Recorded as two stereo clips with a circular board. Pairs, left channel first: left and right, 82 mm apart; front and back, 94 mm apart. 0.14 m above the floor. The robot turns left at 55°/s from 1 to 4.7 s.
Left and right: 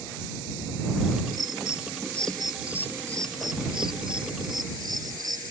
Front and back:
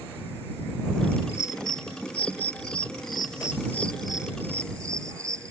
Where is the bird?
65° left; by 5.5 s 125° right.